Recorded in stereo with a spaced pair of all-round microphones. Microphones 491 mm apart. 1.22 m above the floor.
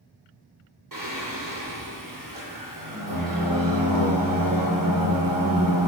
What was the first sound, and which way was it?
Singing, 40° right (ahead or behind).